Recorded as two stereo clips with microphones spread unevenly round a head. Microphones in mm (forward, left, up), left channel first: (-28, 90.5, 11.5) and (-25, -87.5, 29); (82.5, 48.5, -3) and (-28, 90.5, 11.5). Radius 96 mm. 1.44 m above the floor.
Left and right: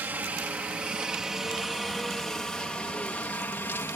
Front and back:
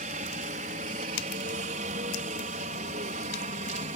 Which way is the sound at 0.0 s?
170° right.